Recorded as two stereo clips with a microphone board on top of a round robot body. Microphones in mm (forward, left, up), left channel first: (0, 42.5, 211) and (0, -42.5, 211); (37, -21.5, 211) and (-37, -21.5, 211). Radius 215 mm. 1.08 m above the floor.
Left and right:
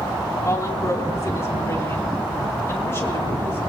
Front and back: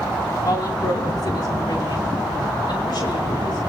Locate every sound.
0.5 s a woman speaking: 35° left, 3 m; by 3.6 s 25° left, 5.5 m